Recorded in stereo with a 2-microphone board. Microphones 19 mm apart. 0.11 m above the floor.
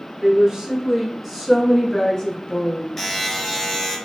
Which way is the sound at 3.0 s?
15° left (ahead or behind).